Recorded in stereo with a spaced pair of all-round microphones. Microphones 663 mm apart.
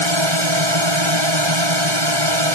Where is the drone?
40° right (ahead or behind).